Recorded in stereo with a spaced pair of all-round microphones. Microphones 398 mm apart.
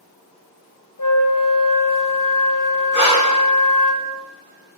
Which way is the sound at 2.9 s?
30° right (ahead or behind).